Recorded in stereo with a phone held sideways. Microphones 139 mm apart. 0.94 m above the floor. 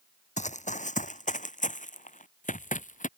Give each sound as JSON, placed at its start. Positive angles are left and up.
{"t": 0.4, "sound": "running footsteps", "side_deg": 60}